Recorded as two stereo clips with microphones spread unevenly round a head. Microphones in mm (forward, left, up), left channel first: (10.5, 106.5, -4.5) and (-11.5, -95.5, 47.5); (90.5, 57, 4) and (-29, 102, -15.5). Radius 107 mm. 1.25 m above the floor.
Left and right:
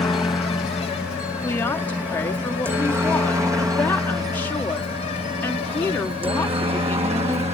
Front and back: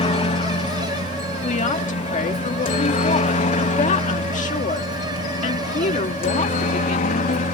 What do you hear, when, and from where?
0.0 s a helicopter: 5° left; by 7.5 s 30° right
1.4 s a woman speaking: 5° left